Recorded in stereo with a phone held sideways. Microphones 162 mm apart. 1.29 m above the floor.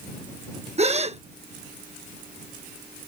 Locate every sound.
0.8 s a gasp: 40° right (ahead or behind)